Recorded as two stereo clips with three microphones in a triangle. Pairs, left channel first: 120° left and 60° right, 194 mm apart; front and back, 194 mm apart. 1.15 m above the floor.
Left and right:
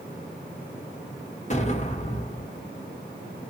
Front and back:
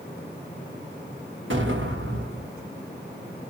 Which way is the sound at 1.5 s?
170° left.